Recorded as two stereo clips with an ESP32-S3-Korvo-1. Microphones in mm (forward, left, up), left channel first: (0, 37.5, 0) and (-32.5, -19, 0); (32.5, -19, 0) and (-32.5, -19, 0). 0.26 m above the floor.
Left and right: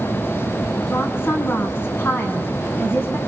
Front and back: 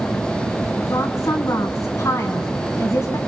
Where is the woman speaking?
15° left, 2.5 m.